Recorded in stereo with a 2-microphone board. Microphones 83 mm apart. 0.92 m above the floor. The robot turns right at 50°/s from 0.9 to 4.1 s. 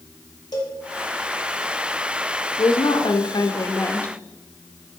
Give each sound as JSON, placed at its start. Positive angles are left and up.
{"t": 0.5, "sound": "a cowbell", "side_deg": 50, "distance_m": 1.3}
{"t": 2.6, "sound": "a woman speaking", "azimuth_deg": 80, "distance_m": 0.8}